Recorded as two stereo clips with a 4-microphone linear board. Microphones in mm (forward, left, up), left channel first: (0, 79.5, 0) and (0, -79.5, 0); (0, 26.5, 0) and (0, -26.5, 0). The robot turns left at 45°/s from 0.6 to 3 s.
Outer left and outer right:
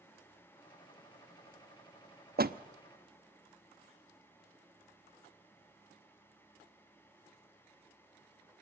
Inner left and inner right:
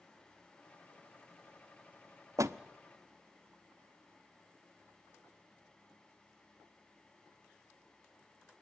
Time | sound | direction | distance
2.4 | a door slam | 75° right (ahead or behind) | 0.8 m